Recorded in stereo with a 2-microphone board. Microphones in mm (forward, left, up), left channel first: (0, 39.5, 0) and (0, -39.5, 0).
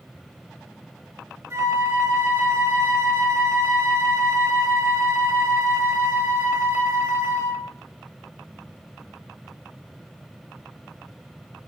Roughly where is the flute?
Right.